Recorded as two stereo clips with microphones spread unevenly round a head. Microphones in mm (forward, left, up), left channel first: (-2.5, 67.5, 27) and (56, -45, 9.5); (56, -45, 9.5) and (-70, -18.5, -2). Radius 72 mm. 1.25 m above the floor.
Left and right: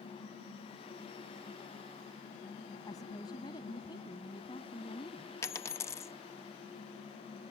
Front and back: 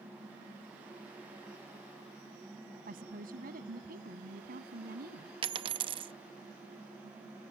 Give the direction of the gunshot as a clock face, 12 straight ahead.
I don't hear a gunshot.